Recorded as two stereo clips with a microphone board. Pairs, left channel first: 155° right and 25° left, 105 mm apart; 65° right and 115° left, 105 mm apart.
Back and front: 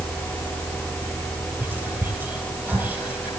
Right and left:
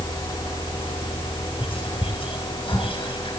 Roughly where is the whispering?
Ahead right.